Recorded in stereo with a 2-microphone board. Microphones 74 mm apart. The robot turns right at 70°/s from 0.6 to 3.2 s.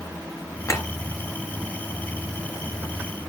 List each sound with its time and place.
0.7 s a clink: 40° left (ahead or behind), 4 m; by 0.9 s 30° left (ahead or behind), 4 m